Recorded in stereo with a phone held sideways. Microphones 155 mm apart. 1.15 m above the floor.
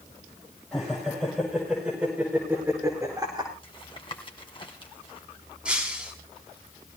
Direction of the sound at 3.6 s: 35° left (ahead or behind).